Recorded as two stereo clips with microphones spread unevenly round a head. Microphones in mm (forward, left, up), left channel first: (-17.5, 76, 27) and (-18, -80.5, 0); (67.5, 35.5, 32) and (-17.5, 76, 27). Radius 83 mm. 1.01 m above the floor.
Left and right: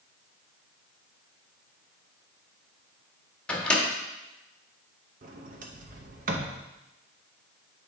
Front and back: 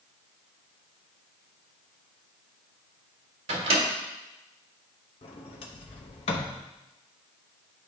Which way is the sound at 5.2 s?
55° right.